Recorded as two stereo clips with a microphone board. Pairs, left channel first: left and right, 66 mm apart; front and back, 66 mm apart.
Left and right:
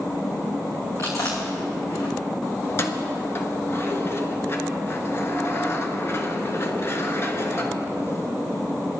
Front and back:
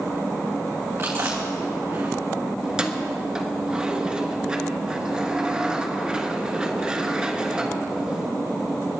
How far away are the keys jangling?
About 1.2 m.